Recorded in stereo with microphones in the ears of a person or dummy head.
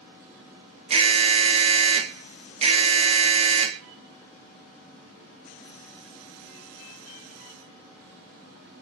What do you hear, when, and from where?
0.9 s an alarm: 35° right (ahead or behind), 1.4 m